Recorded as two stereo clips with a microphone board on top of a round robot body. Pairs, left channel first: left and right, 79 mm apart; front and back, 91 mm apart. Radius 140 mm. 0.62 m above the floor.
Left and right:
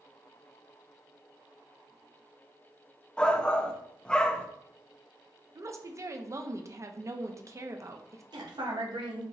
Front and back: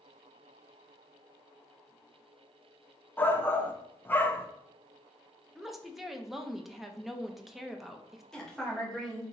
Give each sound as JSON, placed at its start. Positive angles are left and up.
{"t": 3.2, "sound": "a shout", "azimuth_deg": 25, "distance_m": 0.8}
{"t": 5.5, "sound": "a woman speaking", "azimuth_deg": -95, "distance_m": 0.8}
{"t": 8.3, "sound": "a woman speaking", "azimuth_deg": -85, "distance_m": 1.6}